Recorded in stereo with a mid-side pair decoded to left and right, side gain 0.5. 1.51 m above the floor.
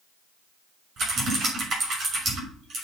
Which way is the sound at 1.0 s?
55° right.